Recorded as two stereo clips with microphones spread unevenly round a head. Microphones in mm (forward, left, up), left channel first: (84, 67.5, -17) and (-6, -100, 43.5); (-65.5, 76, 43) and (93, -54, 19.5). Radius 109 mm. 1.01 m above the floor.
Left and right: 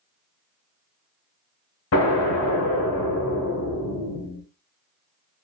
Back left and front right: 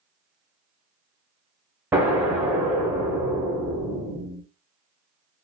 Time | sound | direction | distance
1.9 | an explosion | 45° left | 1.3 m